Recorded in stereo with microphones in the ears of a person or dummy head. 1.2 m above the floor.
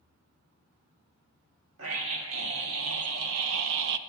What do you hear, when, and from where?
1.8 s a scream: 85° right, 1.7 m; by 4.0 s 75° right (ahead or behind), 0.6 m